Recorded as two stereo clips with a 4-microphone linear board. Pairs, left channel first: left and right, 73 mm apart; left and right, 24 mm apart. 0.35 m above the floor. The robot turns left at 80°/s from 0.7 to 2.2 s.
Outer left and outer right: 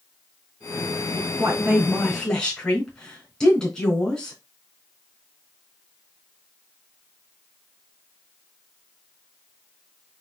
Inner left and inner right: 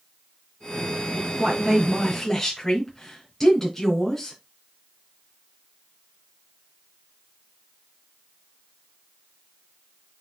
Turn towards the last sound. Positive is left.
turn(degrees=170)